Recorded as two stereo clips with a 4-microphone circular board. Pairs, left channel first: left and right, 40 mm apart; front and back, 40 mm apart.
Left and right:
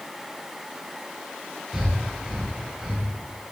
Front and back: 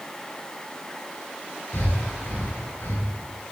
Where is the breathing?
10° right, 6.5 m.